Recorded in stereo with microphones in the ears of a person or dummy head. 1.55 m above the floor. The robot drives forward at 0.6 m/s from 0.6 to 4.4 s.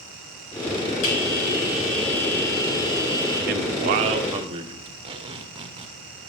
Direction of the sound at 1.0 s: 70° left (ahead or behind).